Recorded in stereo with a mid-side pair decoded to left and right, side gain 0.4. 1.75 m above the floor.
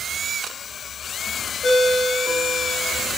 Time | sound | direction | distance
1.6 | a ringtone | 40° left | 5.5 m